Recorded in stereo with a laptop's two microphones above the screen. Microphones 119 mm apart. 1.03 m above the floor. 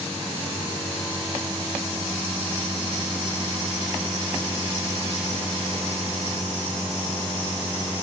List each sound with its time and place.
Only background noise.